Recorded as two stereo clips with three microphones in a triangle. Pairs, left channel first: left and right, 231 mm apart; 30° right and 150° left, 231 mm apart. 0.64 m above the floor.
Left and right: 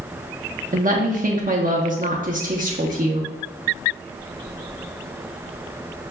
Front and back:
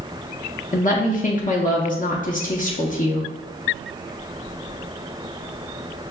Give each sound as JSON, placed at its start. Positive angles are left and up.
{"t": 0.7, "sound": "a woman speaking", "azimuth_deg": -60, "distance_m": 0.7}